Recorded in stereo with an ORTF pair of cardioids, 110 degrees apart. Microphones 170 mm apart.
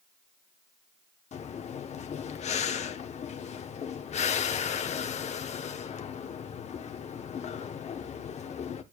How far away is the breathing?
About 1.0 m.